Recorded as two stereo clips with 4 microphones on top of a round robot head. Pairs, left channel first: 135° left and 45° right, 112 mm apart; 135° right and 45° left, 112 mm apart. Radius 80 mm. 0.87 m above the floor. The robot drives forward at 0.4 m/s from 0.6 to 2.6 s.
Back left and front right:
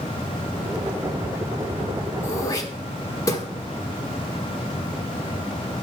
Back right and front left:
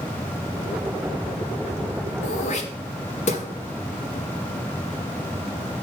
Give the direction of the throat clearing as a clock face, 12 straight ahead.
5 o'clock.